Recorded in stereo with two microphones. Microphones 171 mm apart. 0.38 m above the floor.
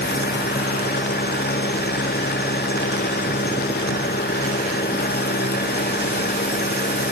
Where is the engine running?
70° left (ahead or behind).